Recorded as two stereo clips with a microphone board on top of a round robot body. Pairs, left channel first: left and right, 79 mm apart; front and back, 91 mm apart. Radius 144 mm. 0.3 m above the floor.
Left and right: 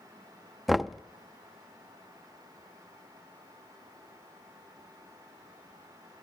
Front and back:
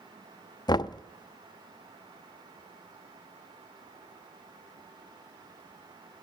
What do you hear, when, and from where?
0.7 s knocking: straight ahead, 0.7 m